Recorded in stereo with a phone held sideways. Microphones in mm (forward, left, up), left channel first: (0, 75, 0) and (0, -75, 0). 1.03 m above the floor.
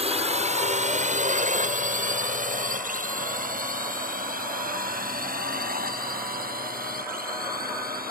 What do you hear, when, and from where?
0.0 s a drone: 45° right (ahead or behind); by 8.1 s 75° right (ahead or behind)